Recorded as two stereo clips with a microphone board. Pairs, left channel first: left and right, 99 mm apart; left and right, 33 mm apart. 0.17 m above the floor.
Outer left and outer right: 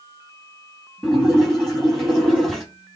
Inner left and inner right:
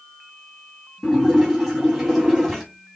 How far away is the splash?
About 5 m.